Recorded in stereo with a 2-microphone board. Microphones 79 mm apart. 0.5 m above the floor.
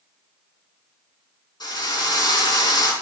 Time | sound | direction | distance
1.6 | a drill | 60° left (ahead or behind) | 5 m